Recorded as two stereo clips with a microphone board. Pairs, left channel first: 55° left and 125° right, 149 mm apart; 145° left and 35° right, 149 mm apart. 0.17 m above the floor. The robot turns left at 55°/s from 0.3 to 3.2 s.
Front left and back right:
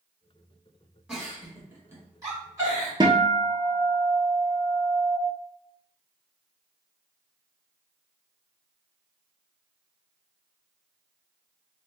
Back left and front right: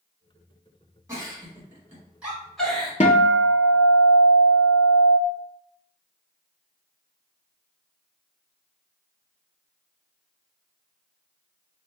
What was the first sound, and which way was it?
A giggle, 45° right.